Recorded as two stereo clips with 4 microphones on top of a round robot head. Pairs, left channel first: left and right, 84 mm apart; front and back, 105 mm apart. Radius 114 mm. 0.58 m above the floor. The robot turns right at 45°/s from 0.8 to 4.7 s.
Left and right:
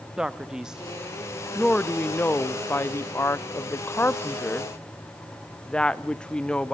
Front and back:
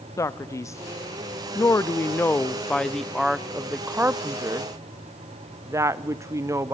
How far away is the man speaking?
About 0.7 m.